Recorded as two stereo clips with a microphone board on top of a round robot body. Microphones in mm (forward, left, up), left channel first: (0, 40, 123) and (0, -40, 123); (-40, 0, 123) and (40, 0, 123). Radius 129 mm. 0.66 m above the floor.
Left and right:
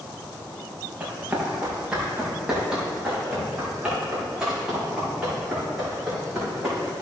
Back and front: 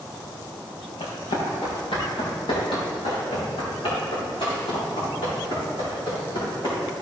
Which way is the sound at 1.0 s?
165° right.